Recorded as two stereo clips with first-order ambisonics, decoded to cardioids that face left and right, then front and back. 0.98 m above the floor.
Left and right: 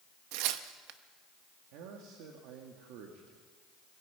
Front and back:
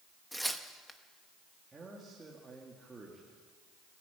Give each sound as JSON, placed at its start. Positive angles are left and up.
{"t": 0.3, "sound": "tearing paper", "azimuth_deg": -90, "distance_m": 1.0}
{"t": 1.7, "sound": "a man speaking", "azimuth_deg": -105, "distance_m": 2.0}